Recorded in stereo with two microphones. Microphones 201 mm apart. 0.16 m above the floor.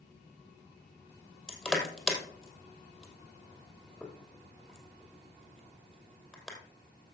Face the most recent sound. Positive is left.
turn(degrees=0)  # may be behind; listen again after turning